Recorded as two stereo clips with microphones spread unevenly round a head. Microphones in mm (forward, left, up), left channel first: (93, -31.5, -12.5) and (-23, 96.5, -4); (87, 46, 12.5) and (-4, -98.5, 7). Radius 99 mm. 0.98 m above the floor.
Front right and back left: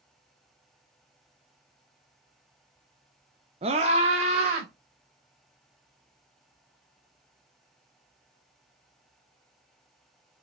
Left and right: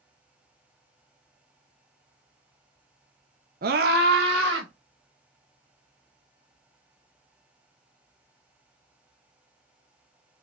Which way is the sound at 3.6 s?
165° right.